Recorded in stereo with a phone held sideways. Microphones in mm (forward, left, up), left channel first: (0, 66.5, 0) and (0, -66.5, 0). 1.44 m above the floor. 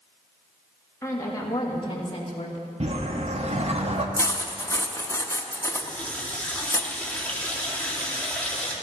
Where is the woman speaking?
20° left (ahead or behind), 3 m; by 2.7 s 50° left (ahead or behind), 2 m.